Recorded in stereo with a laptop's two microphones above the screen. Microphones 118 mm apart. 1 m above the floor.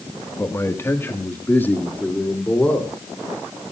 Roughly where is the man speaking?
Left.